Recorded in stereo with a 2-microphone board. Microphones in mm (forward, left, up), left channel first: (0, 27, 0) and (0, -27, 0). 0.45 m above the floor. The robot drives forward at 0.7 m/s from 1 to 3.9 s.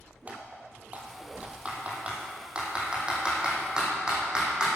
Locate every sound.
0.3 s typing on a keyboard: 30° right (ahead or behind), 2.5 m; by 4.7 s 15° right (ahead or behind), 4.5 m